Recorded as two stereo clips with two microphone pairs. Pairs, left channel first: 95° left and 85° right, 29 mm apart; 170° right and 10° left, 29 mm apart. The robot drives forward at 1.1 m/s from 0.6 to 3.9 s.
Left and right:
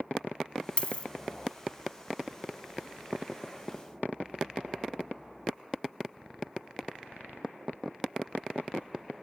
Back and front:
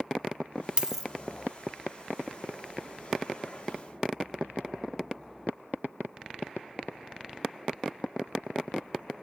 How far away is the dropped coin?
About 0.7 m.